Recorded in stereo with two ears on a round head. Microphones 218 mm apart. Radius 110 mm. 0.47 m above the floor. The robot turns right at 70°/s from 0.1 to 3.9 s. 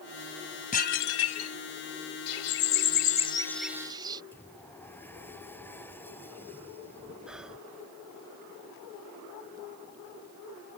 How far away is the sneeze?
No sneeze in this recording.